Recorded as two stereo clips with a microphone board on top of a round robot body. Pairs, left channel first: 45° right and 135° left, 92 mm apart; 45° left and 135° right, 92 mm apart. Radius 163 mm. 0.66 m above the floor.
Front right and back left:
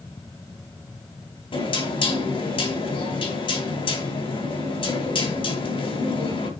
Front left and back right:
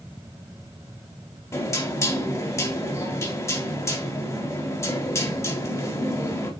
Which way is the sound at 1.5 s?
15° right.